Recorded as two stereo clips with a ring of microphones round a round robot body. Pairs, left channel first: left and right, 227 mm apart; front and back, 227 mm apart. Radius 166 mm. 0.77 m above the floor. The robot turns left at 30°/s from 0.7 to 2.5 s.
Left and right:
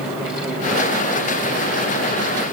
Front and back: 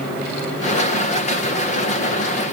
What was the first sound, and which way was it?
Only background noise.